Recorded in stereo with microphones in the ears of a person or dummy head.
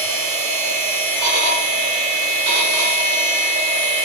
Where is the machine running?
60° right (ahead or behind), 2 m.